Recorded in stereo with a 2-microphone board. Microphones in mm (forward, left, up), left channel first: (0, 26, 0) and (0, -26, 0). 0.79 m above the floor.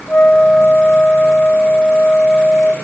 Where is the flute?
25° left (ahead or behind), 1.0 m.